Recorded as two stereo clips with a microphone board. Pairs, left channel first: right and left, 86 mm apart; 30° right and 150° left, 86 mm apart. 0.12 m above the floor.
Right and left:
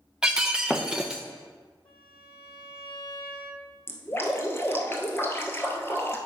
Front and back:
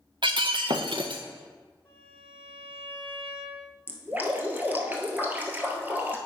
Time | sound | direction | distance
0.2 | breaking glass | 170° left | 0.8 m
1.9 | a violin | 100° right | 3 m
3.9 | dripping | 145° right | 1.1 m